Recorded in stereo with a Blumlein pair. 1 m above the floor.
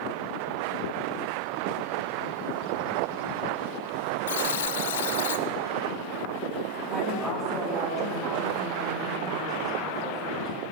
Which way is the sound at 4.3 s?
60° left.